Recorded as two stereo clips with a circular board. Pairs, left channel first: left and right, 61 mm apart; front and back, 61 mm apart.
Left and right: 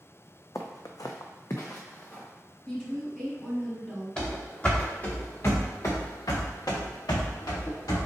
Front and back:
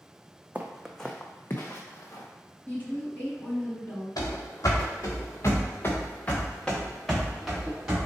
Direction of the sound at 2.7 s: 25° left.